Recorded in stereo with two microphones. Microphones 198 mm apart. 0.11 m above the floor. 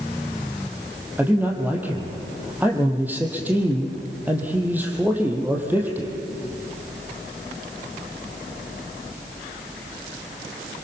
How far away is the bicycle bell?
No bicycle bell in this recording.